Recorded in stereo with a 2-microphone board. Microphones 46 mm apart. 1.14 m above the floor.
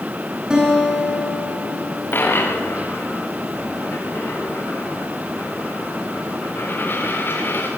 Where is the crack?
I don't hear a crack.